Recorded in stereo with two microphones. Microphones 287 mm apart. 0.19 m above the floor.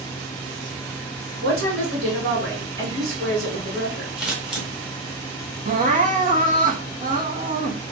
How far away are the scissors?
About 1.5 m.